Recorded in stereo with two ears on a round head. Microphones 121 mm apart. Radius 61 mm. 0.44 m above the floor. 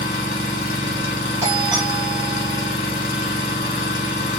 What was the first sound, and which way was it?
An engine running, 70° left (ahead or behind).